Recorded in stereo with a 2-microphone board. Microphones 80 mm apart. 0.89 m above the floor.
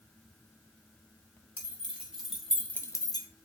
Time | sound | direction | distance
1.6 | keys jangling | 20° right (ahead or behind) | 1.4 m